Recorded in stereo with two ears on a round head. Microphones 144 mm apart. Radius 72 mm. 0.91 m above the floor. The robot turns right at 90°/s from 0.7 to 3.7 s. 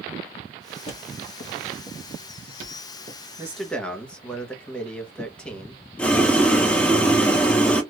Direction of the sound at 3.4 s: 15° right (ahead or behind).